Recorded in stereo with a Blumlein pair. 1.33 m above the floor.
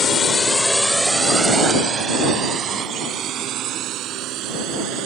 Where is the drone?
25° left; by 5.1 s 35° right.